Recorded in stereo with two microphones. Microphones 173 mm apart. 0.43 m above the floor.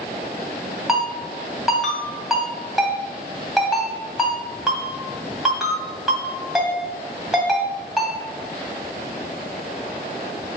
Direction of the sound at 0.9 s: Centre (ahead or behind).